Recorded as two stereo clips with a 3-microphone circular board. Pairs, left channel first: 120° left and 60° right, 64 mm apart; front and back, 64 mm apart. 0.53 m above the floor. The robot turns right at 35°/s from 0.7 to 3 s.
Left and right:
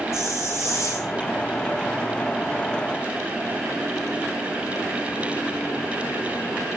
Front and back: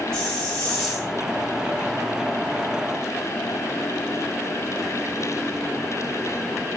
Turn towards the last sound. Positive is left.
turn(degrees=160)